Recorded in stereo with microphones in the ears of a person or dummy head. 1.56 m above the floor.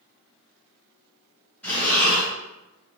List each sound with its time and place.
1.6 s breathing: 5° left (ahead or behind), 1.2 m